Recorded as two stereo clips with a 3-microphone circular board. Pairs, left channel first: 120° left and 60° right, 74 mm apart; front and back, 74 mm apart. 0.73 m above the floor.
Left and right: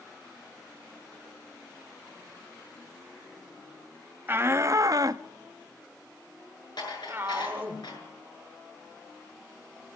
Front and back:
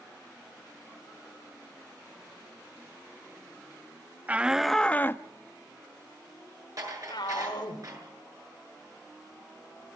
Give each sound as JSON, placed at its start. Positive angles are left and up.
{"t": 4.3, "sound": "a shout", "azimuth_deg": -115, "distance_m": 0.8}
{"t": 6.8, "sound": "dishes clattering", "azimuth_deg": 140, "distance_m": 7.0}